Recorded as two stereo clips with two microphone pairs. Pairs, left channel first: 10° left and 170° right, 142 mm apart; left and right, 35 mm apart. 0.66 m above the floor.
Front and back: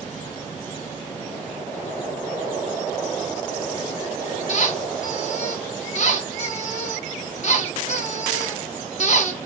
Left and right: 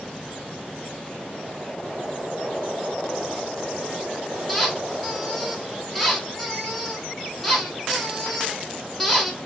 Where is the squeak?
Straight ahead, 0.9 m.